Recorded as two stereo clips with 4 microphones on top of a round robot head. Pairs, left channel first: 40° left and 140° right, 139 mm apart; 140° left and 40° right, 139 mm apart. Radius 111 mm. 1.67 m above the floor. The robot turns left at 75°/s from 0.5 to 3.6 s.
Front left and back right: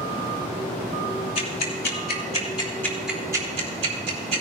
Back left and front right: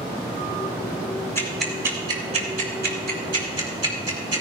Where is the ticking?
75° left, 3.5 m; by 4.4 s 95° right, 3.5 m.